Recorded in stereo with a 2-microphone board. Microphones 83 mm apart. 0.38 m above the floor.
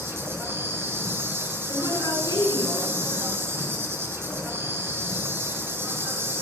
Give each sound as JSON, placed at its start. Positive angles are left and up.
{"t": 0.0, "sound": "an insect", "side_deg": -30, "distance_m": 2.5}
{"t": 1.7, "sound": "a woman speaking", "side_deg": 50, "distance_m": 7.0}